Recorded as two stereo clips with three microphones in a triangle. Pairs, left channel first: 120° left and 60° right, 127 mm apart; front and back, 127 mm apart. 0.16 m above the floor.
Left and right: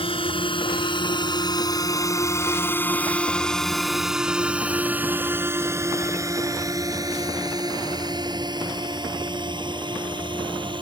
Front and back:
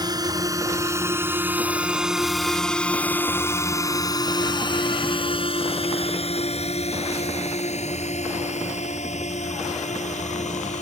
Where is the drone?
135° left; by 10.8 s 10° right.